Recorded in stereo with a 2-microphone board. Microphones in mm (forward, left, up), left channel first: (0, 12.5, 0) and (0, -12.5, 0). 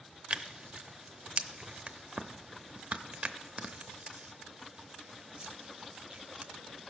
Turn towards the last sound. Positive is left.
turn(degrees=-50)  # may be behind; listen again after turning